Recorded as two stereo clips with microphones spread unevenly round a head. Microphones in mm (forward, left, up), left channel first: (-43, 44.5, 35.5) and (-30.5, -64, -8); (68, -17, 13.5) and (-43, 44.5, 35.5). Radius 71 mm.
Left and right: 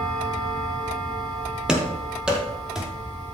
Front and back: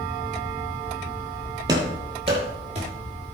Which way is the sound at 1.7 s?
165° left.